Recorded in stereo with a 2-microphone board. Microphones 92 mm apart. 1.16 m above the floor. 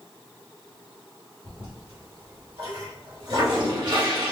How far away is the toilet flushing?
About 2.5 m.